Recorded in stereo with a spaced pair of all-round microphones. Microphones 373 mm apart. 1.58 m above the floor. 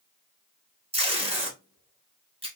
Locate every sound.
0.9 s tape being pulled: 15° right (ahead or behind), 1.1 m